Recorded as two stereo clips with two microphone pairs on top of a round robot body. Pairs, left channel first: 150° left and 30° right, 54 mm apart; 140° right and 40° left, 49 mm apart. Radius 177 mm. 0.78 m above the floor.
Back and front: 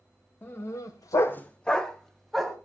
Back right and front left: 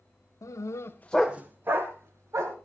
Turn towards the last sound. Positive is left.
turn(degrees=65)